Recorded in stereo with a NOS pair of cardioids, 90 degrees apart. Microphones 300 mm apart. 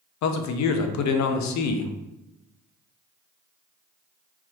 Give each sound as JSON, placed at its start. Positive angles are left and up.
{"t": 0.2, "sound": "a man speaking", "azimuth_deg": 65, "distance_m": 0.6}